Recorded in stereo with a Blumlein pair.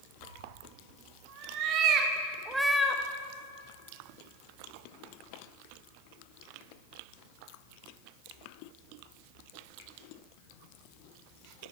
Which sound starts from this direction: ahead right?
A cat meowing, at 0.2 s.